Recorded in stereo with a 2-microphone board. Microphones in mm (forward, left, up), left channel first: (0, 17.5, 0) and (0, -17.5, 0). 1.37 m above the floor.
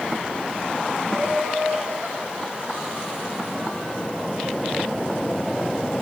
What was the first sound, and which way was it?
Laughter, 65° right (ahead or behind).